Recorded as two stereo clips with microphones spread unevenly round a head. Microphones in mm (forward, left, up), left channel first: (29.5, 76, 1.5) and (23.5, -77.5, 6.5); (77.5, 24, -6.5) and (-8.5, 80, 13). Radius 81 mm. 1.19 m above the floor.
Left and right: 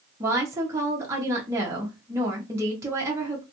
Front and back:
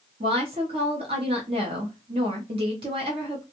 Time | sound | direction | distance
0.2 | a woman speaking | 165° right | 0.8 m